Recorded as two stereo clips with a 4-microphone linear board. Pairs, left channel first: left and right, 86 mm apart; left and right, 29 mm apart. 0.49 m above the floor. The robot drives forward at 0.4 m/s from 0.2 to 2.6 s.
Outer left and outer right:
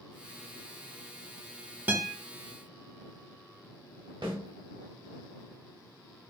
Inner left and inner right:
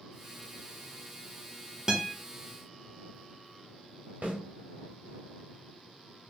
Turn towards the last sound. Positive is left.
turn(degrees=-70)  # may be behind; listen again after turning